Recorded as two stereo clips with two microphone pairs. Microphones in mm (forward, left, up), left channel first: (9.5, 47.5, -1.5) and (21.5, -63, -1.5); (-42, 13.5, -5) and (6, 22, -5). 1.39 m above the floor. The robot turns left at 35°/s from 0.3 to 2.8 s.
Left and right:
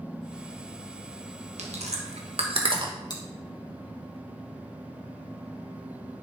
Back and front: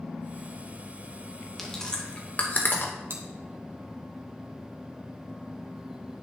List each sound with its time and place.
1.6 s chewing: 85° right, 1.2 m; by 2.9 s 125° right, 1.2 m
3.1 s chewing: 45° left, 1.6 m